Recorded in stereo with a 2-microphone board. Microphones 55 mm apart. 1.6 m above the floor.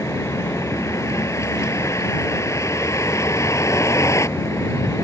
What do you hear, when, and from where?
0.0 s a vehicle: 65° left (ahead or behind)